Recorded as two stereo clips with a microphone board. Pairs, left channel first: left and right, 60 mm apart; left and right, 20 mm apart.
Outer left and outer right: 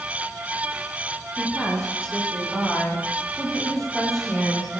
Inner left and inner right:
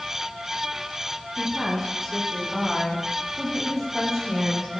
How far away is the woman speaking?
About 10 m.